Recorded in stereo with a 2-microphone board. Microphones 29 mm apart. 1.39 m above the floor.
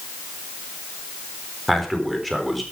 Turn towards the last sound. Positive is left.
turn(degrees=0)  # may be behind; listen again after turning